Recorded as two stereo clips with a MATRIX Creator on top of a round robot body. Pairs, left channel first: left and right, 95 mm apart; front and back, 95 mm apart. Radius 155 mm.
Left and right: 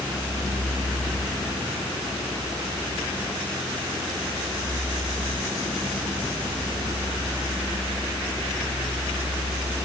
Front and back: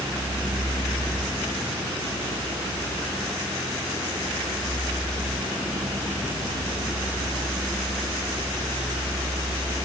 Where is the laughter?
No laughter in this recording.